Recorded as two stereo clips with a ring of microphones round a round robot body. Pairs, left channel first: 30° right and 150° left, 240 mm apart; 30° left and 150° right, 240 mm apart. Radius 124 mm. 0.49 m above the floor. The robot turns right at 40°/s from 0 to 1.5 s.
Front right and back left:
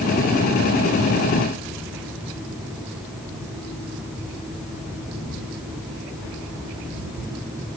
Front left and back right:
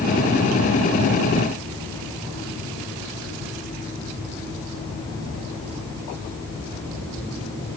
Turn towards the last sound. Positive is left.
No sound to turn to.